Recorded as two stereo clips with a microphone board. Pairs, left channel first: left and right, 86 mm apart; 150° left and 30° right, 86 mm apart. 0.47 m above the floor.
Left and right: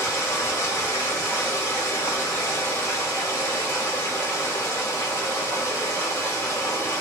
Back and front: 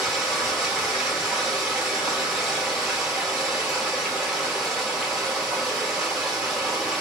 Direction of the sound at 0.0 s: 55° left.